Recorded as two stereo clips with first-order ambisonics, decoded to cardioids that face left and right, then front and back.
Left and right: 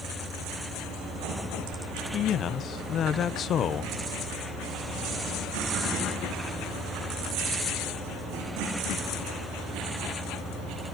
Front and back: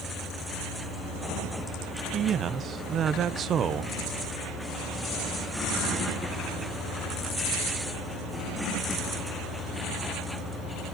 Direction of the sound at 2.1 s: 130° left.